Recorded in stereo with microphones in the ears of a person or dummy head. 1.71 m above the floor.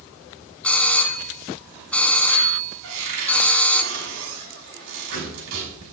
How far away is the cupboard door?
About 6.5 m.